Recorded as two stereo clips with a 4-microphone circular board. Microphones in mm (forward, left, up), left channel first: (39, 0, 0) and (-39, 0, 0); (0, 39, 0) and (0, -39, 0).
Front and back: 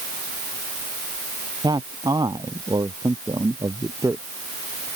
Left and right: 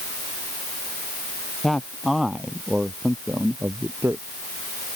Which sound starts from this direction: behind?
A man speaking, at 1.6 s.